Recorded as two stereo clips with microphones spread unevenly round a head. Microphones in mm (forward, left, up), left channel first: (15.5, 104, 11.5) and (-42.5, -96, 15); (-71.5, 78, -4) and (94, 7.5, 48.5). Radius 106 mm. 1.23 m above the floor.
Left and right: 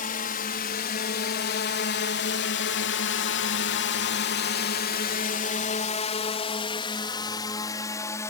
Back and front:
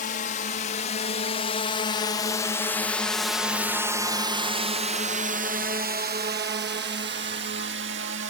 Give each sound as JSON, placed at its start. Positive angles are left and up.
{"t": 0.0, "sound": "a drone", "azimuth_deg": 120}